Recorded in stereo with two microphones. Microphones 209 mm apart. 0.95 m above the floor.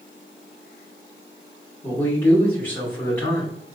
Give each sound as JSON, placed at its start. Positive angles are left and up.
{"t": 1.8, "sound": "a man speaking", "side_deg": 10, "distance_m": 2.0}